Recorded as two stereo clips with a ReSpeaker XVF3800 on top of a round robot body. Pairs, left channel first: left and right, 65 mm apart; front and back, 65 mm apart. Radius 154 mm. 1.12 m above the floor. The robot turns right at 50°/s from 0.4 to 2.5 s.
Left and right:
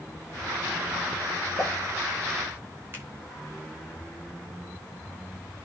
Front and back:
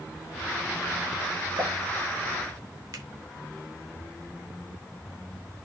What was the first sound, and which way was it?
A pop, 145° left.